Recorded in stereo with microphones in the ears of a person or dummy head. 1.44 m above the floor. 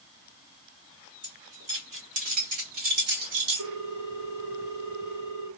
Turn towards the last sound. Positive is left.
turn(degrees=-65)  # may be behind; listen again after turning